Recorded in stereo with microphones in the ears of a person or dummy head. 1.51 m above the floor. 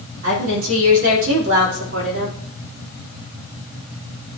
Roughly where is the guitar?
I don't hear a guitar.